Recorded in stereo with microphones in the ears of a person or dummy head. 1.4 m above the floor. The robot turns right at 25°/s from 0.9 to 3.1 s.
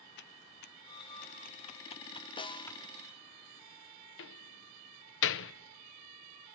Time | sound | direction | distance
0.2 | typing on a keyboard | 50° left (ahead or behind) | 0.6 m
2.4 | a snare drum | 25° left (ahead or behind) | 0.6 m
4.2 | a door slam | 65° left (ahead or behind) | 0.9 m